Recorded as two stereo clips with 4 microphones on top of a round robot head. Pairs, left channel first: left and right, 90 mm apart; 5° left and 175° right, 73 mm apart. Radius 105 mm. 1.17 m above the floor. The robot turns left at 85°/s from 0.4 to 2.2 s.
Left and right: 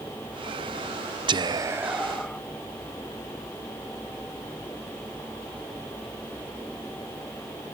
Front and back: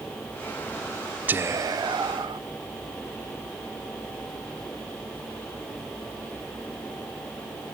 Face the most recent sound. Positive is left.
turn(degrees=170)